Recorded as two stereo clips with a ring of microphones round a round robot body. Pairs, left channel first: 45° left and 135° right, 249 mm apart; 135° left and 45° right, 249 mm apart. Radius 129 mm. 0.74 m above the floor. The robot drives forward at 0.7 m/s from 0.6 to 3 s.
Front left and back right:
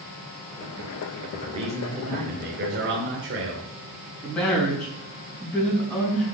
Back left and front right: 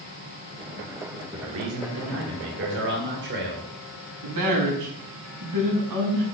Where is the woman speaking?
40° right, 5.5 m.